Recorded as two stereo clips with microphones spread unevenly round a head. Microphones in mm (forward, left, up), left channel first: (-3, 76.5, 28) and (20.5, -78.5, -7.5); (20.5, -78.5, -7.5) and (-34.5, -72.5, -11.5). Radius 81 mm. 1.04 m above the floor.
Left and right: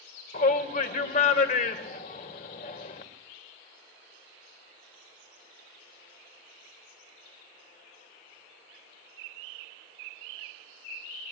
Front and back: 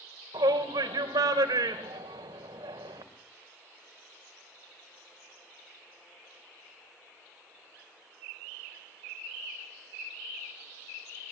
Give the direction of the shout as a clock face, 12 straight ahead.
7 o'clock.